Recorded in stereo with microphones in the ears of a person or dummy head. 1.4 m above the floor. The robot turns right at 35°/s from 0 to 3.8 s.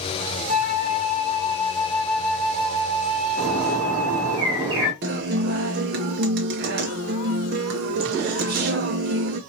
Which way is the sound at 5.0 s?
40° right (ahead or behind).